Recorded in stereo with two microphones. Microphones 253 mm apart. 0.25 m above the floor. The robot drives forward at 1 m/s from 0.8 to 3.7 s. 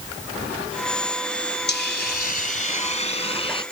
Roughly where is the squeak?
I don't hear a squeak.